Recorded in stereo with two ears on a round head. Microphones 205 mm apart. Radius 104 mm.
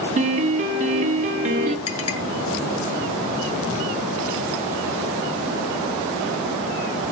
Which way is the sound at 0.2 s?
30° right (ahead or behind).